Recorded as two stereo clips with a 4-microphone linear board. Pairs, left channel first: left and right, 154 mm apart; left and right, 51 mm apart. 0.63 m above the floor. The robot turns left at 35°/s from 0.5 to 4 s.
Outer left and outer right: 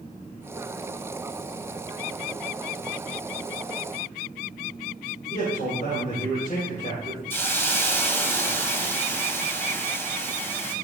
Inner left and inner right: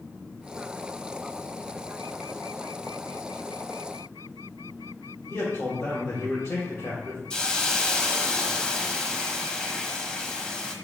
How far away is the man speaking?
About 3 m.